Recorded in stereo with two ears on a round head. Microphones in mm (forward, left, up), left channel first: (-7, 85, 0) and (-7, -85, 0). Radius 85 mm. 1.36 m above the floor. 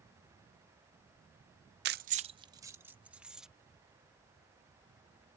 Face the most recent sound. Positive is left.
turn(degrees=-5)  # may be behind; listen again after turning